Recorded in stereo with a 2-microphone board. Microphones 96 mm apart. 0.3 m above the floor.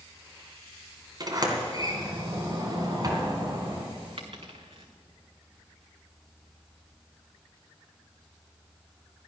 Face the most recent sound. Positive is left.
turn(degrees=-65)  # may be behind; listen again after turning